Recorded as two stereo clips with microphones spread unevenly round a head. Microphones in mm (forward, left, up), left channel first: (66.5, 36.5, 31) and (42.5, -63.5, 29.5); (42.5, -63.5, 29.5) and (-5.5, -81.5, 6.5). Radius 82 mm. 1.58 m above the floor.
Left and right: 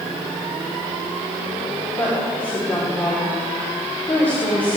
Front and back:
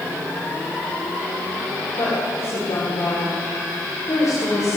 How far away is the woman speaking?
About 4.5 m.